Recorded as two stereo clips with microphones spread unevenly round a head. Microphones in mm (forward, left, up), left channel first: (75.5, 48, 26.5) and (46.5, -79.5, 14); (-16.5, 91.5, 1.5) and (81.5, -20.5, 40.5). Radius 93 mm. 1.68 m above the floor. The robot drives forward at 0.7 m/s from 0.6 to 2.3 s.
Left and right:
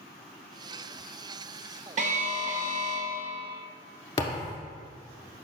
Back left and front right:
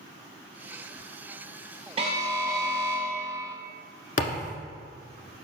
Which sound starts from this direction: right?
An alarm, at 2.0 s.